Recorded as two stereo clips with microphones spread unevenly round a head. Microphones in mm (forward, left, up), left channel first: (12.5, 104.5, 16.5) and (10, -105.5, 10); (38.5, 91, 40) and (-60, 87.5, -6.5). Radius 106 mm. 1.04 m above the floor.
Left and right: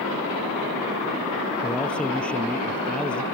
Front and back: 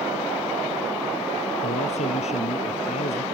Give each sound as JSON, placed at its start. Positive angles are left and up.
{"t": 1.6, "sound": "a man speaking", "azimuth_deg": 5}